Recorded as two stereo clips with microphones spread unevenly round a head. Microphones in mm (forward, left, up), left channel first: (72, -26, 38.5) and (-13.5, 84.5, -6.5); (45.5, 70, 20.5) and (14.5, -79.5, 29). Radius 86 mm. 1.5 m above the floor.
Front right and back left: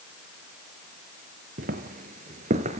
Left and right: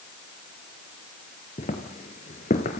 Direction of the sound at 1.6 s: 115° left.